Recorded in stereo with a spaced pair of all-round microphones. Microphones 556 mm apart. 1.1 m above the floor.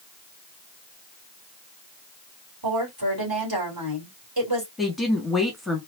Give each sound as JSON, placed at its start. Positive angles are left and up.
{"t": 2.6, "sound": "a woman speaking", "side_deg": -40, "distance_m": 3.5}
{"t": 4.8, "sound": "a woman speaking", "side_deg": 0, "distance_m": 1.7}